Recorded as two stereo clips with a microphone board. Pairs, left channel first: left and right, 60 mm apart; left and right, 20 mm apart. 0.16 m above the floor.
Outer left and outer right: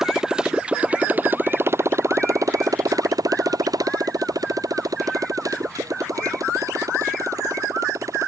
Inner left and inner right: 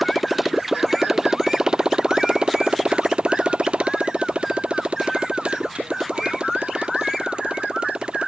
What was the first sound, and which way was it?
A motorcycle, 5° right (ahead or behind).